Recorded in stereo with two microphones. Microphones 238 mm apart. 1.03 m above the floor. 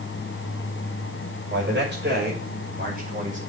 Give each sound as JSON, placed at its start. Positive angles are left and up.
{"t": 1.5, "sound": "a man speaking", "side_deg": -50, "distance_m": 5.5}